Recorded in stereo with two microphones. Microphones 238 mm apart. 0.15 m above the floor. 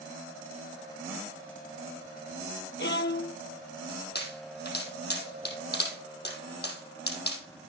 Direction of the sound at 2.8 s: 50° left (ahead or behind).